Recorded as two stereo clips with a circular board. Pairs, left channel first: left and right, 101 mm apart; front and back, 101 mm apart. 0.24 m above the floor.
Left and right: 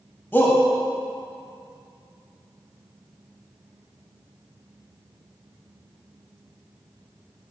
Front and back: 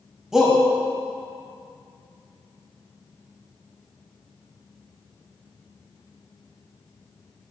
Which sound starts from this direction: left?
A shout, at 0.3 s.